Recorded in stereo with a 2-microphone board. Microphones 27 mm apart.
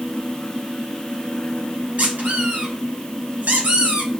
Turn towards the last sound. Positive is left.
turn(degrees=-85)